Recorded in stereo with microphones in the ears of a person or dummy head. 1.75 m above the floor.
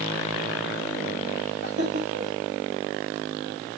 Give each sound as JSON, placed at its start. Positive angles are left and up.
{"t": 1.6, "sound": "laughter", "side_deg": -85, "distance_m": 9.0}